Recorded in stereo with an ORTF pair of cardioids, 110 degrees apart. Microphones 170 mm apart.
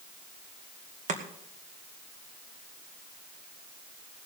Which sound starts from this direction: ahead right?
Chopping, at 1.1 s.